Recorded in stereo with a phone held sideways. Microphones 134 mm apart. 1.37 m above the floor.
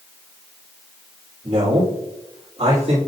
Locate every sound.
1.4 s a man speaking: 40° right (ahead or behind), 3 m